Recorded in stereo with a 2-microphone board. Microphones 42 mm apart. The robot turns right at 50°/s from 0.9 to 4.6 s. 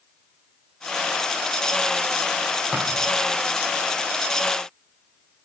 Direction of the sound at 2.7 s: 5° right (ahead or behind).